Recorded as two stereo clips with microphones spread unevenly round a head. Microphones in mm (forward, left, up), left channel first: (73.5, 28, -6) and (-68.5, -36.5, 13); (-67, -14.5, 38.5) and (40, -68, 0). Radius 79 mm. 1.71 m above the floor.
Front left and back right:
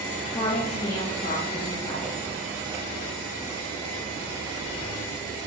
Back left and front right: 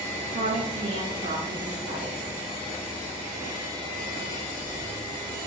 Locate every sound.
0.3 s a woman speaking: 45° right, 0.7 m; by 2.2 s 5° right, 2.5 m